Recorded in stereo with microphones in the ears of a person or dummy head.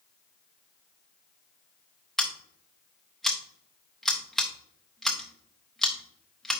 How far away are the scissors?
About 0.8 m.